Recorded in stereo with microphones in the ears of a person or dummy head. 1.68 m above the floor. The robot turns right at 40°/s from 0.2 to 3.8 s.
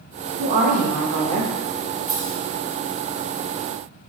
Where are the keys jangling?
Centre (ahead or behind), 1.4 m; by 2.4 s 10° left (ahead or behind), 1.4 m.